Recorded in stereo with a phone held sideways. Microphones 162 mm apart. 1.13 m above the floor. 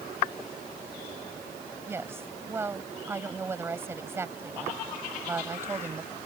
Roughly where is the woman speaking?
Centre.